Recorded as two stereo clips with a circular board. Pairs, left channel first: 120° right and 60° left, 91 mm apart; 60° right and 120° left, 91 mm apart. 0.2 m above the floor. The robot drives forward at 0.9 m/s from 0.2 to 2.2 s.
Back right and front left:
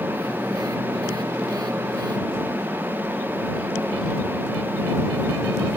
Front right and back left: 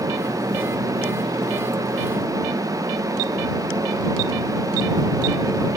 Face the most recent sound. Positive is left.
No sound to turn to.